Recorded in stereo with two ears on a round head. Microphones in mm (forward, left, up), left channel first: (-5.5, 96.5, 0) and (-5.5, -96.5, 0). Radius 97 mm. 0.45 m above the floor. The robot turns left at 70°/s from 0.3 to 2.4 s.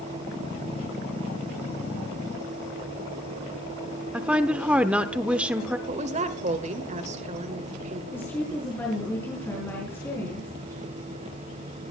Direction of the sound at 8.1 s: 10° left (ahead or behind).